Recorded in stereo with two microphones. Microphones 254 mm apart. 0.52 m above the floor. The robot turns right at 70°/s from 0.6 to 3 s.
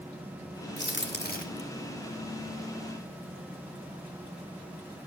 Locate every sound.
0.8 s a crack: 45° left (ahead or behind), 1.6 m; by 1.6 s 25° left (ahead or behind), 1.6 m